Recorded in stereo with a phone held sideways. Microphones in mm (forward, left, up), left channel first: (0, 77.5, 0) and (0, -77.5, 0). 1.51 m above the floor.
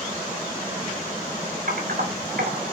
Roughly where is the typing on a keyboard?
Right.